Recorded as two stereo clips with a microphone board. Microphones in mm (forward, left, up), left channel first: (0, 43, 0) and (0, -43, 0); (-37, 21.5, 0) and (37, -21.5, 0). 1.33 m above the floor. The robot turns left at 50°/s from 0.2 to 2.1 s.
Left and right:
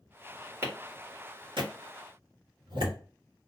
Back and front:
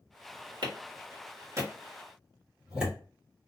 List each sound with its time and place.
0.6 s a clap: 35° right, 1.8 m; by 3.0 s 110° right, 1.8 m